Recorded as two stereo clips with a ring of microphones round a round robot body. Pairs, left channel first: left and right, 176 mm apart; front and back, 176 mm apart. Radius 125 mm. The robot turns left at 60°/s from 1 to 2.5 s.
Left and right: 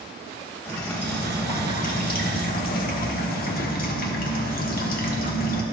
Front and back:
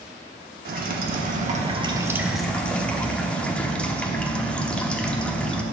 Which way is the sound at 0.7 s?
170° left.